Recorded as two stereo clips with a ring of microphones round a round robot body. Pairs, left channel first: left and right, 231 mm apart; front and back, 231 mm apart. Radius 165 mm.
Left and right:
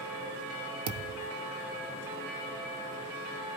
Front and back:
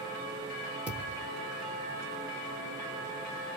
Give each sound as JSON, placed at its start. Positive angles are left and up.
{"t": 0.9, "sound": "a thud", "azimuth_deg": -95, "distance_m": 0.7}